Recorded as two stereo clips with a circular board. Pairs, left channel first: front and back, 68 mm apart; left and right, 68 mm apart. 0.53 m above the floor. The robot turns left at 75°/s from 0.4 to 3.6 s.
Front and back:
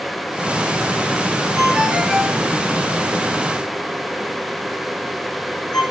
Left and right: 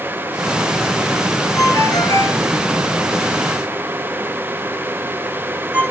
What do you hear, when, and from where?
1.6 s a ringtone: 130° left, 6.5 m; by 5.8 s 25° right, 6.5 m